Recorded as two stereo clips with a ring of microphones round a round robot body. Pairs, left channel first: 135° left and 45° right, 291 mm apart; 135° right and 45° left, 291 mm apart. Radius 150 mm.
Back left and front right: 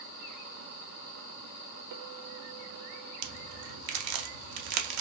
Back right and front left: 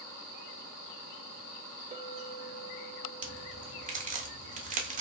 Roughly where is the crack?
Ahead.